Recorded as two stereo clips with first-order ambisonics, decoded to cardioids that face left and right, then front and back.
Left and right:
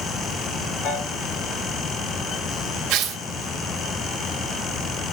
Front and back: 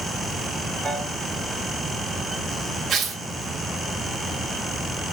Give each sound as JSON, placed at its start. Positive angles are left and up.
{"t": 0.8, "sound": "a piano", "azimuth_deg": 80, "distance_m": 1.9}
{"t": 2.9, "sound": "tearing paper", "azimuth_deg": -120, "distance_m": 0.7}